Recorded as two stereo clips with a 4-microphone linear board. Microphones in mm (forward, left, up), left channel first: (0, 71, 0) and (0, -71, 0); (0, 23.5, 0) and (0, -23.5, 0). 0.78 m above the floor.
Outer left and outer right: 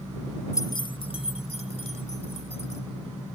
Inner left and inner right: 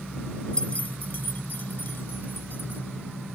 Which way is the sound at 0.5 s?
20° left (ahead or behind).